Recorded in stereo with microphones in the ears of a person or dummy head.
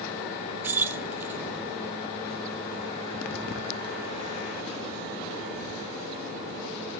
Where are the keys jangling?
10° right (ahead or behind), 0.6 m.